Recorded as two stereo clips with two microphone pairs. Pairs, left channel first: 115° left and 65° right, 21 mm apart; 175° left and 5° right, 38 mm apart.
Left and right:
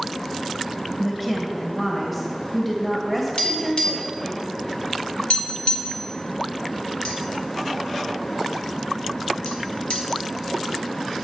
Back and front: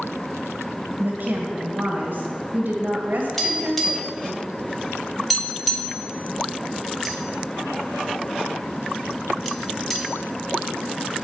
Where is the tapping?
90° left, 2 m.